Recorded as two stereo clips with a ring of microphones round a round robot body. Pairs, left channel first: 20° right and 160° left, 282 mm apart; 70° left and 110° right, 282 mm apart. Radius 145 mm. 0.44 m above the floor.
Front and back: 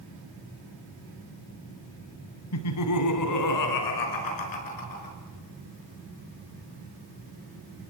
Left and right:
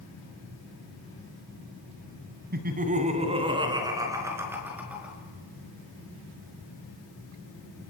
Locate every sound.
2.5 s laughter: 55° right, 3 m; by 5.2 s 25° right, 6.5 m